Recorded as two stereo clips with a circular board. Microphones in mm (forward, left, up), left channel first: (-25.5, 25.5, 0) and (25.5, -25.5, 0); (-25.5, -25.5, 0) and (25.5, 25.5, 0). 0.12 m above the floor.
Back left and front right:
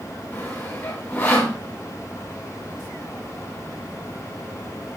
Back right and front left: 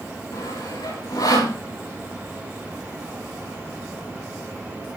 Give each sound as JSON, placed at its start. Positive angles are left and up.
{"t": 0.3, "sound": "sawing", "azimuth_deg": -160, "distance_m": 10.0}